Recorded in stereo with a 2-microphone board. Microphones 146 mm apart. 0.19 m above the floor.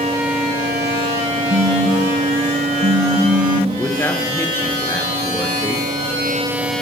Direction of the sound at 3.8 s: 15° left (ahead or behind).